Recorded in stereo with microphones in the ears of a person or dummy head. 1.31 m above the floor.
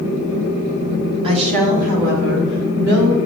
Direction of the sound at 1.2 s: 25° right (ahead or behind).